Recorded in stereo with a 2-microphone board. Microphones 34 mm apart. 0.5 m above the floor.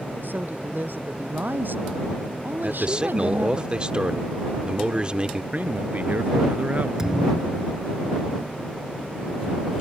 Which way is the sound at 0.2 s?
75° right (ahead or behind).